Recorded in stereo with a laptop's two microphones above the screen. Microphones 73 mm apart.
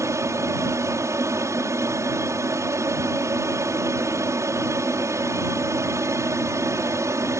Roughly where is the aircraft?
Right.